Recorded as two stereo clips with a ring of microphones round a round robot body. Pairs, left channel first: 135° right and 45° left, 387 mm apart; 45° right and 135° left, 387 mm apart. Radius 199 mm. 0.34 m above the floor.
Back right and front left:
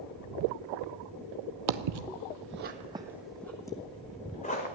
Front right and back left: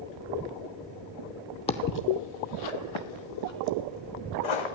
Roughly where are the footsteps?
Ahead left.